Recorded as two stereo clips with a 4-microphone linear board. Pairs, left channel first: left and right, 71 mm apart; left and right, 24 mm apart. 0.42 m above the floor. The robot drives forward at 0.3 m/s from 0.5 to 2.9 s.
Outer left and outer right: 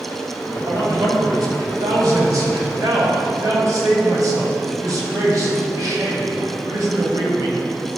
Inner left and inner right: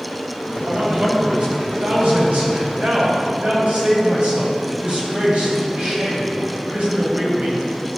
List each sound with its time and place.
0.7 s a man speaking: 65° right (ahead or behind), 2.5 m; by 7.9 s 60° right (ahead or behind), 3 m